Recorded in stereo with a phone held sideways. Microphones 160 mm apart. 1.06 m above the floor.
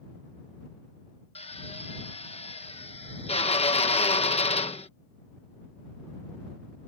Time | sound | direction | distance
1.4 | a drill | 40° left (ahead or behind) | ?